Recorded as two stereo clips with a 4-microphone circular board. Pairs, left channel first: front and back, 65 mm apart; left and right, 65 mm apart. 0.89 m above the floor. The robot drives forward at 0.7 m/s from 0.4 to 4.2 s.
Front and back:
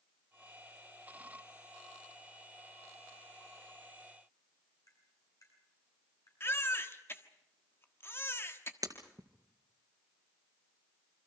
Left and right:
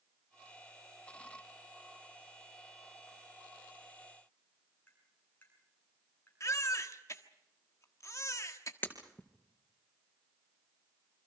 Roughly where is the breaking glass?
Behind left.